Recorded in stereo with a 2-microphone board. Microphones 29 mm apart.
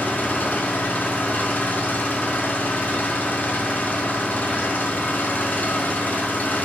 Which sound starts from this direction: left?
An engine running, at 0.0 s.